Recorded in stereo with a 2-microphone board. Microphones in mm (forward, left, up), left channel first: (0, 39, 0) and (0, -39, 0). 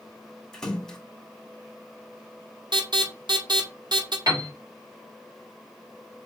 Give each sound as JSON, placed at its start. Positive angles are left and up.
{"t": 0.5, "sound": "a splash", "side_deg": 5, "distance_m": 1.9}
{"t": 2.7, "sound": "an alarm", "side_deg": -75, "distance_m": 2.0}
{"t": 4.3, "sound": "a piano", "side_deg": -50, "distance_m": 3.5}